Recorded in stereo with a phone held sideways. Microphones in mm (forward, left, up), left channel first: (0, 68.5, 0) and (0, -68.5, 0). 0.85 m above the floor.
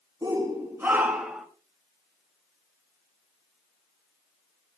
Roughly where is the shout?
Right.